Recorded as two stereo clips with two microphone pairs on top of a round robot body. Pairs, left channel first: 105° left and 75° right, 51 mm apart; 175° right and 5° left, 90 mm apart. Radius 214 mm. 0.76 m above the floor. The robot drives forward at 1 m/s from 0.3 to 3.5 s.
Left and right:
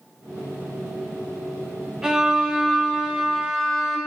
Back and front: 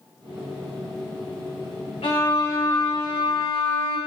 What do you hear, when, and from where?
2.0 s a violin: 150° right, 1.5 m; by 4.0 s 165° right, 3 m